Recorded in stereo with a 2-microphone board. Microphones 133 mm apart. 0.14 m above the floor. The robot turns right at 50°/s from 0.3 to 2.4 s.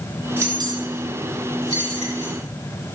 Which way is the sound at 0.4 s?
20° right (ahead or behind).